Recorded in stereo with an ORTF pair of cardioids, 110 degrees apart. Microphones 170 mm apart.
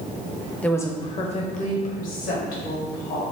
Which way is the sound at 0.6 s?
5° left.